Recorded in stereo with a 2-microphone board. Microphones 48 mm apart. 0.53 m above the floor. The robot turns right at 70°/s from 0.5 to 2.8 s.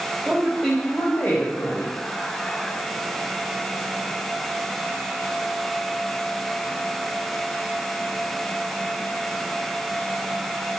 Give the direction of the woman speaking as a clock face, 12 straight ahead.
1 o'clock.